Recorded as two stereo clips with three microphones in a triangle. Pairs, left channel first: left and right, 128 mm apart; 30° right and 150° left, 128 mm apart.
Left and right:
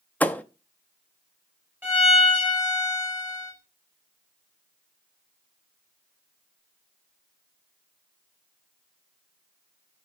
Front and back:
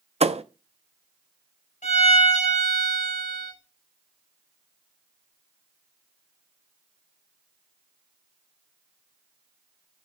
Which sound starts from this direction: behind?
A thud, at 0.2 s.